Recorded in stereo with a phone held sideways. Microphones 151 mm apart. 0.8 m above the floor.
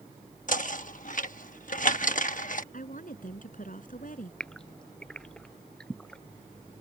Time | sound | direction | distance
0.5 | knocking | 60° left (ahead or behind) | ?
2.7 | a woman speaking | 65° left (ahead or behind) | ?
4.4 | a gasp | 5° left (ahead or behind) | ?